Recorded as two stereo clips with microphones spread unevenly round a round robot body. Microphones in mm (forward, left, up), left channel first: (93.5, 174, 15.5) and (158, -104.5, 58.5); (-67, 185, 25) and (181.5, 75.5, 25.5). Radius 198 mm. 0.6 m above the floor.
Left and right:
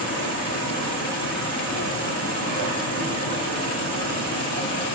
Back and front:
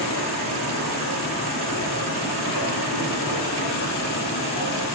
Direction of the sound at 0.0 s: 140° right.